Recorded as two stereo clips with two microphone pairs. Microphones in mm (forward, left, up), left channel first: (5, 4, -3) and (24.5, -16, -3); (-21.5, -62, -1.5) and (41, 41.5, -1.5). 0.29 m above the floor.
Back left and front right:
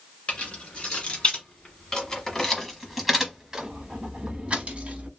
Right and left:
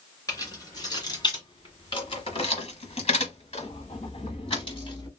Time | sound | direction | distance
0.3 | keys jangling | straight behind | 1.9 m